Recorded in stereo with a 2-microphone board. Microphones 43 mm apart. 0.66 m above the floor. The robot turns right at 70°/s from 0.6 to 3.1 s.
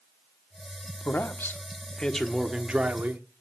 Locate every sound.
1.1 s a man speaking: 90° left, 1.1 m; by 3.2 s 125° right, 1.1 m